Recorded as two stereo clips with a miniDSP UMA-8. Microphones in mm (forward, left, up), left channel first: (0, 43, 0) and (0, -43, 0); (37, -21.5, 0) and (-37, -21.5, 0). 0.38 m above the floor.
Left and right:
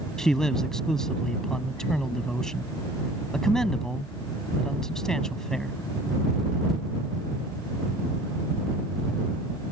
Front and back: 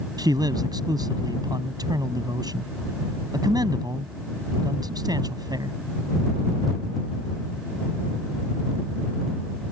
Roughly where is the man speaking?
Behind.